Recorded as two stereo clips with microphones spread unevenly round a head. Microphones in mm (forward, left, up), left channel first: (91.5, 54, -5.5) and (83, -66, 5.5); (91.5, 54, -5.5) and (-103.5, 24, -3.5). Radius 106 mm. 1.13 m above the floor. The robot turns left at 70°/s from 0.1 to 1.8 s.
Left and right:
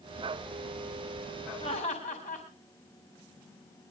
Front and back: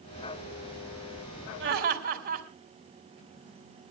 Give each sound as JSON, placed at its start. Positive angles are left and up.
{"t": 1.6, "sound": "laughter", "azimuth_deg": 160, "distance_m": 4.5}